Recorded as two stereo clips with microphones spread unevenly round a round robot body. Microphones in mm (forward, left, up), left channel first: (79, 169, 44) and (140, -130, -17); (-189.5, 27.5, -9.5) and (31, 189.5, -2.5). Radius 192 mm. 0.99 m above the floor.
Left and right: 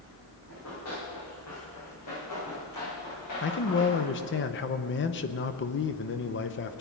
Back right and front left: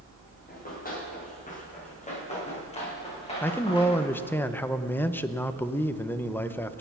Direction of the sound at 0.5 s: 160° left.